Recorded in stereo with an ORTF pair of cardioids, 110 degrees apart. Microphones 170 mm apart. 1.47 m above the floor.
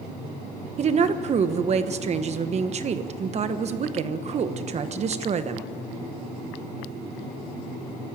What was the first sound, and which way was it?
A woman speaking, 40° right.